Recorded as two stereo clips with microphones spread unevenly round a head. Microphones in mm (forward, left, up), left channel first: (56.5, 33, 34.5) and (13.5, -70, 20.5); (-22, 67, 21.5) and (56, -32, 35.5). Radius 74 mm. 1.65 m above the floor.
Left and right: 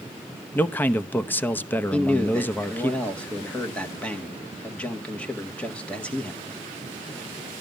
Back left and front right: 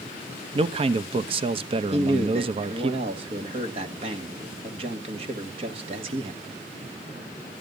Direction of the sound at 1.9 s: 10° right.